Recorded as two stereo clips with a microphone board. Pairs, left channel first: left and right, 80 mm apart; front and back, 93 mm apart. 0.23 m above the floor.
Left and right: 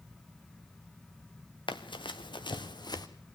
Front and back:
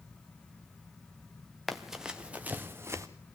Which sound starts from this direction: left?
Running footsteps, at 1.7 s.